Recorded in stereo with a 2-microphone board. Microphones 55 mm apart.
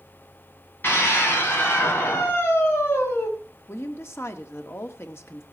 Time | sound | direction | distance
0.8 | a scream | 40° left (ahead or behind) | 6.5 m
3.7 | a woman speaking | 55° left (ahead or behind) | 1.7 m